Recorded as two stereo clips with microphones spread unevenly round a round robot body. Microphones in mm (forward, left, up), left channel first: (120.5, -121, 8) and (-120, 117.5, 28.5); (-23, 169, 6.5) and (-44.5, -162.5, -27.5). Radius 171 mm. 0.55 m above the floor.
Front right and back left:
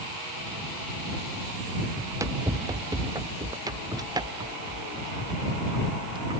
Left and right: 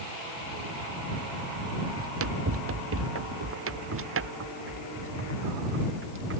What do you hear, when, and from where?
2.0 s running footsteps: 145° right; by 6.4 s 150° right